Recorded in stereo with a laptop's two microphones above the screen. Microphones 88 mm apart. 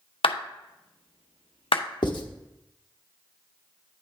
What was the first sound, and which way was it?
A clap, 80° left.